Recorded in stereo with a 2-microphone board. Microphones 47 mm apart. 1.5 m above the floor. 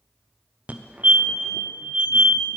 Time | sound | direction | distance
0.7 | a fire alarm | 35° right (ahead or behind) | 0.6 m